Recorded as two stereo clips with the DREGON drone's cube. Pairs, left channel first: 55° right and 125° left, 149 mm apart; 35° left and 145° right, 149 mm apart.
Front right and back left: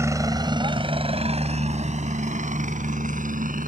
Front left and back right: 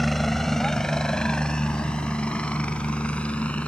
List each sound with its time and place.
0.0 s a helicopter: 120° left; by 3.7 s 115° left